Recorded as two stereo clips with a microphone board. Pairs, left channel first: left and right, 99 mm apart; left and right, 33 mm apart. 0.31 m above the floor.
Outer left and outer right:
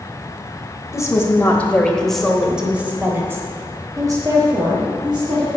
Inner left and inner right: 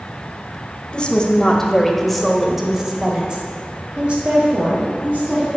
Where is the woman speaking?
30° left (ahead or behind), 1.3 m; by 5.5 s 50° right (ahead or behind), 2 m.